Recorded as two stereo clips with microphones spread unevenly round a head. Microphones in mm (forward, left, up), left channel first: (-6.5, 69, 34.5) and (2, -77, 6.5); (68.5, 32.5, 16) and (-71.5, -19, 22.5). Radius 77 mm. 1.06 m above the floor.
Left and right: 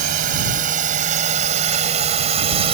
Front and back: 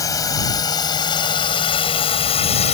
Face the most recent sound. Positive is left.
turn(degrees=-30)